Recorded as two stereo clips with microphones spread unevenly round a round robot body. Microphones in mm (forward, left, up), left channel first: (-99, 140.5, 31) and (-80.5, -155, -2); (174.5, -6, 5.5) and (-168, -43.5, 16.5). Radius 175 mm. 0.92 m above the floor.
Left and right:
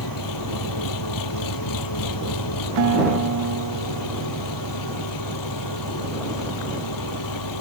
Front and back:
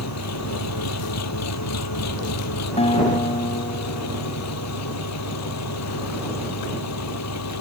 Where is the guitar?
65° right.